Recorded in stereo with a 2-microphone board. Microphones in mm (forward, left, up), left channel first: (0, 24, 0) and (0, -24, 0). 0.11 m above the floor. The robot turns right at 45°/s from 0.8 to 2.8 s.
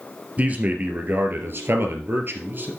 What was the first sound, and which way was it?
A man speaking, 140° right.